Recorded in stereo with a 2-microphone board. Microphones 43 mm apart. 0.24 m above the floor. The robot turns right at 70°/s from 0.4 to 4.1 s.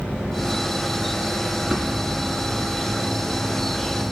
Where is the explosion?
170° right, 2 m; by 3.4 s 50° right, 2 m.